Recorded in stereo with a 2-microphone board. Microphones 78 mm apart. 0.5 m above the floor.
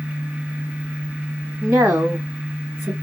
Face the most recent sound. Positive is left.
turn(degrees=-20)  # may be behind; listen again after turning